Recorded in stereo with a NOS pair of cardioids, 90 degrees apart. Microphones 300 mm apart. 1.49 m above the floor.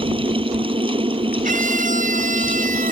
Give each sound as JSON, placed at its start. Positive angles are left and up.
{"t": 0.0, "sound": "a fan", "azimuth_deg": -20}
{"t": 1.4, "sound": "a scream", "azimuth_deg": -30}